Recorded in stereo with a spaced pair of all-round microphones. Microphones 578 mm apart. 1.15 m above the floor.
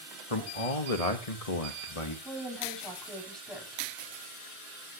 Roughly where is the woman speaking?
Centre.